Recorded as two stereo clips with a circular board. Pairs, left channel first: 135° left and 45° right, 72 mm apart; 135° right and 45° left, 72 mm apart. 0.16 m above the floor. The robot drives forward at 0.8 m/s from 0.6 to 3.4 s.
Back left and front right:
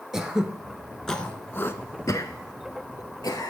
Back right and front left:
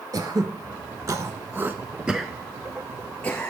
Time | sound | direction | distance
0.1 | throat clearing | 40° left | 1.2 m